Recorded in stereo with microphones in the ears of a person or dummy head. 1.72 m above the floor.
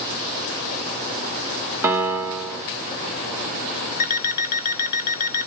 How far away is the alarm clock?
About 2.5 m.